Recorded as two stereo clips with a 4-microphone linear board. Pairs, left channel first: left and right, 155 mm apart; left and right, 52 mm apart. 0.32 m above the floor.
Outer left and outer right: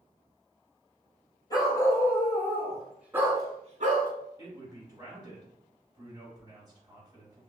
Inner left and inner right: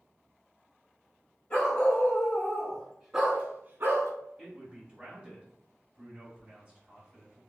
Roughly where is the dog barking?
Left.